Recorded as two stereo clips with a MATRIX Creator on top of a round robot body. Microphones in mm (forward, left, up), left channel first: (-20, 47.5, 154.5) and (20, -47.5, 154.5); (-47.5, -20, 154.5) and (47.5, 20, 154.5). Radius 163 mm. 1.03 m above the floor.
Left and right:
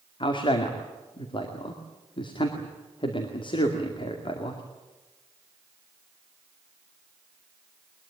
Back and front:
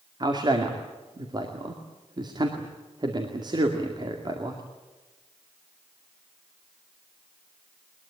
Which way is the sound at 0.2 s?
70° left.